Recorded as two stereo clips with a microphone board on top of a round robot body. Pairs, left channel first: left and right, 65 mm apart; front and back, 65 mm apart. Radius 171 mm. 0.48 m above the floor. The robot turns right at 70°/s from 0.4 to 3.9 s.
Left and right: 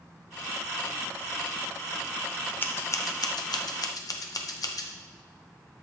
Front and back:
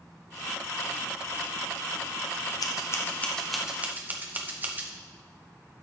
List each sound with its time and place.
2.6 s scissors: 30° left, 0.8 m; by 4.9 s 120° left, 0.8 m